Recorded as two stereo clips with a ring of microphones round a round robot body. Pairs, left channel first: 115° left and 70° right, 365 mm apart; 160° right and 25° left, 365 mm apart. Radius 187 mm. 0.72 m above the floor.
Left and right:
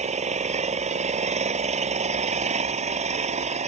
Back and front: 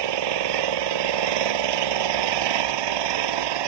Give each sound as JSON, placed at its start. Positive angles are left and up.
{"t": 0.0, "sound": "an engine running", "azimuth_deg": 5}